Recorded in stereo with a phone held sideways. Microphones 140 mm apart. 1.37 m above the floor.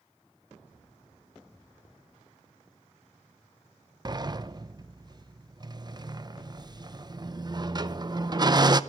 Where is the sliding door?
30° right (ahead or behind), 0.6 m.